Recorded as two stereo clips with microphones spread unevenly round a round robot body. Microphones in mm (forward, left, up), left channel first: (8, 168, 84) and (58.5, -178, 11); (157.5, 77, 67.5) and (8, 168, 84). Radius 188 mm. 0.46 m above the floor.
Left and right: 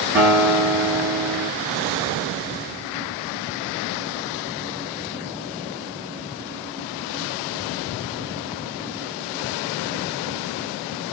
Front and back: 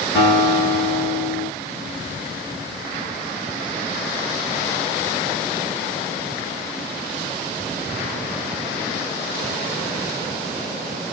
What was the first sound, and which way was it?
A guitar, 30° right.